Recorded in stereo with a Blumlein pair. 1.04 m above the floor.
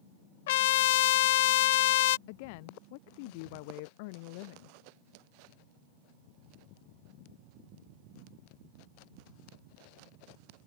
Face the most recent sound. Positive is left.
turn(degrees=45)